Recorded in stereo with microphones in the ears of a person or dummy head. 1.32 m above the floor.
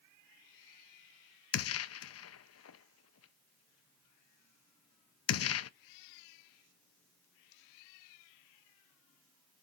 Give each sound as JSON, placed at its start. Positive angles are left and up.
{"t": 1.5, "sound": "a gunshot", "side_deg": 70, "distance_m": 0.6}